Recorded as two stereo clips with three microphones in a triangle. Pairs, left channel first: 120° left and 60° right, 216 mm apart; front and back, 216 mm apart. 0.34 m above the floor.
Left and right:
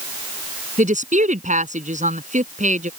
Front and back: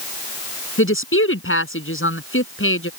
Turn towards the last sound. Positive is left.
turn(degrees=-5)